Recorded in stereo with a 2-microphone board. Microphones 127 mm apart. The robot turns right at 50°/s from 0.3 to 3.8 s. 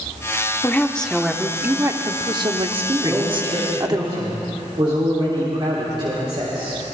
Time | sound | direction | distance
0.6 | a woman speaking | 155° left | 0.9 m
3.0 | a man speaking | 165° right | 3 m